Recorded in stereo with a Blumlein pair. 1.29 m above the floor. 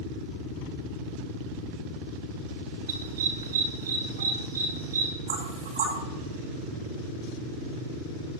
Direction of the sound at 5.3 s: 70° right.